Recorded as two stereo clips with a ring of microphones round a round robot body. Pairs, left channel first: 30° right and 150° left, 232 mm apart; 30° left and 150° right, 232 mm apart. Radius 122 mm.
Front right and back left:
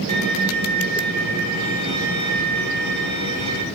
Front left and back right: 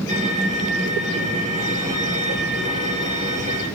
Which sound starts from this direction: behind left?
A violin, at 0.1 s.